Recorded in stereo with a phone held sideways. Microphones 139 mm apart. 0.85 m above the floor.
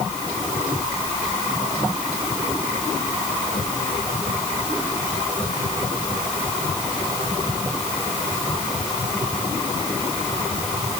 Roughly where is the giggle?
No giggle in this recording.